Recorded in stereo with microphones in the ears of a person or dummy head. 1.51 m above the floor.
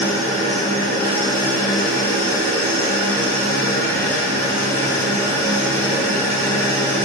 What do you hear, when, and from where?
0.0 s an engine running: 15° left (ahead or behind), 1.7 m